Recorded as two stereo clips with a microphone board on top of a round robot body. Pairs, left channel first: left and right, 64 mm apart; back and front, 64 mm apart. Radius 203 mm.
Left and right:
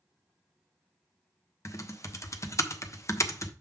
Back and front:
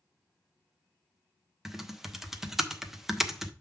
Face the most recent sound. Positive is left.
turn(degrees=85)